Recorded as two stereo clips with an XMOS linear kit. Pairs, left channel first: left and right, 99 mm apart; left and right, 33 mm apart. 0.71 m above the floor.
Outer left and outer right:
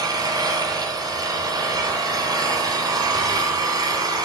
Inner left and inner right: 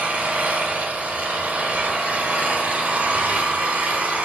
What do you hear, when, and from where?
0.0 s an engine running: 40° right (ahead or behind), 3.5 m